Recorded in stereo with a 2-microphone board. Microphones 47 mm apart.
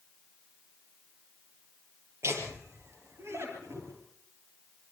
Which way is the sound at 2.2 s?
65° right (ahead or behind).